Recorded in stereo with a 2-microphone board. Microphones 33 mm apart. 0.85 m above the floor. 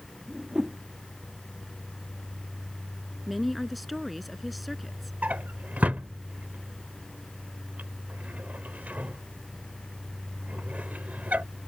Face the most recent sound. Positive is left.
turn(degrees=-55)  # may be behind; listen again after turning